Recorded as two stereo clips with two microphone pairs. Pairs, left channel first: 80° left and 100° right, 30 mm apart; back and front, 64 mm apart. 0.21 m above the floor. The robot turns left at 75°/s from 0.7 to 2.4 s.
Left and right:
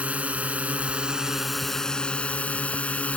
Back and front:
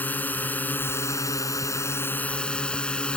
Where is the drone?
125° right; by 3.2 s 105° left.